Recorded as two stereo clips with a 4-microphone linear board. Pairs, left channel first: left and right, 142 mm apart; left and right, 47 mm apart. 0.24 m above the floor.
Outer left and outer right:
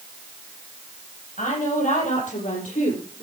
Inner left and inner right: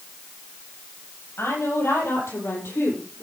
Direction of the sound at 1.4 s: 70° left (ahead or behind).